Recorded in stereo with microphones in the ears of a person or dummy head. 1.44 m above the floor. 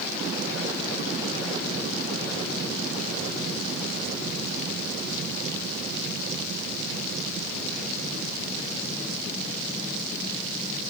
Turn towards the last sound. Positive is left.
No sound to turn to.